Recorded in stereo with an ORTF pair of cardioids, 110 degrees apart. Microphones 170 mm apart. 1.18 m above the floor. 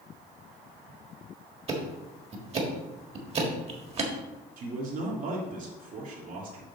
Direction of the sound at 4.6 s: 55° right.